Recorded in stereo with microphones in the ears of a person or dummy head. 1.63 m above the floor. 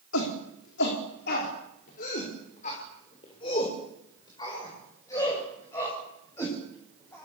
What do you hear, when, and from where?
0.1 s a shout: 75° left (ahead or behind), 4.5 m; by 7.2 s 10° left (ahead or behind), 10.5 m